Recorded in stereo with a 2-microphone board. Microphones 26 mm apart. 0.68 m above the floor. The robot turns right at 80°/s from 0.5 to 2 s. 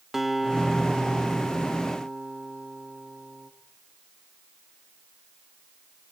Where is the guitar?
165° right, 1.4 m; by 3.5 s 45° right, 1.4 m.